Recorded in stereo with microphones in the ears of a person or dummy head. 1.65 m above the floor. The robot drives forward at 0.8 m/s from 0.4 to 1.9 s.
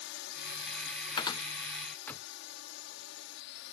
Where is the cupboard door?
35° left (ahead or behind); by 2.3 s 20° left (ahead or behind).